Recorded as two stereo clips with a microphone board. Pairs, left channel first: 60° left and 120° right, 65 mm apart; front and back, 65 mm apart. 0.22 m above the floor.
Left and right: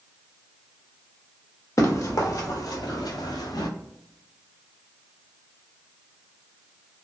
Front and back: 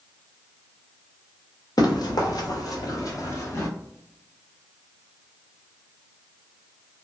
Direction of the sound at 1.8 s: 15° left.